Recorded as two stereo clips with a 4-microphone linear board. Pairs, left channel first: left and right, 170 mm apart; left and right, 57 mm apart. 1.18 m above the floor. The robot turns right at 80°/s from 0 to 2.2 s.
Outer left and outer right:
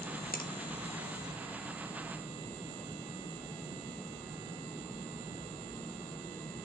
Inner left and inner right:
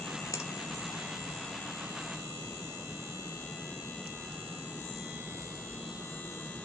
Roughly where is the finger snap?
Left.